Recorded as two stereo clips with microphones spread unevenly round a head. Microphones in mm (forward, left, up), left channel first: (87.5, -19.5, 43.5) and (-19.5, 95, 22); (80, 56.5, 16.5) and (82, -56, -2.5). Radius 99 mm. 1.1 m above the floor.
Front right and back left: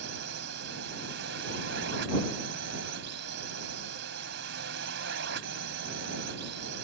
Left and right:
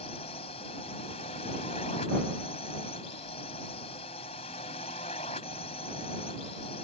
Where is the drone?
155° left.